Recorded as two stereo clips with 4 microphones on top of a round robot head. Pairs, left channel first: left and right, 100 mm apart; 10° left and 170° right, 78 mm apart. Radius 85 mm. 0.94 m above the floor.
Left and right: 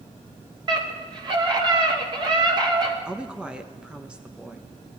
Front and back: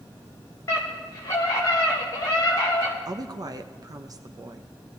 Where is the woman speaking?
165° right, 1.0 m.